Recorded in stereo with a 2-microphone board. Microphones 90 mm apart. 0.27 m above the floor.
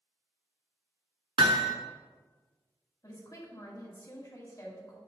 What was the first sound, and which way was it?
Hammering, 80° right.